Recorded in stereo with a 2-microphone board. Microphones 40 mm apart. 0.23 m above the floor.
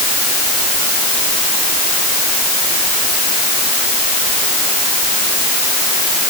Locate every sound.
Only background noise.